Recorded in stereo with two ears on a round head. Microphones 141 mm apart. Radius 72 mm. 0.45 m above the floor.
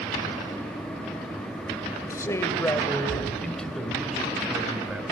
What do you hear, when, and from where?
2.1 s a man speaking: 20° left (ahead or behind), 2 m; by 5.0 s 10° right (ahead or behind), 3 m